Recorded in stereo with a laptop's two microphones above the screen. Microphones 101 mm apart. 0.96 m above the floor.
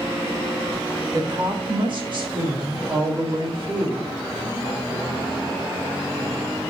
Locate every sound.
1.1 s a woman speaking: 50° right (ahead or behind), 1.3 m; by 4.2 s 55° right (ahead or behind), 3 m